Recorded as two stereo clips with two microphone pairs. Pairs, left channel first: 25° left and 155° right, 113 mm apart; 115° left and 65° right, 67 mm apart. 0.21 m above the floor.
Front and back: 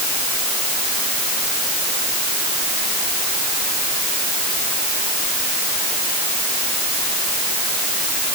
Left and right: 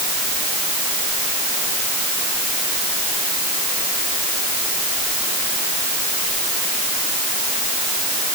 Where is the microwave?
No microwave in this recording.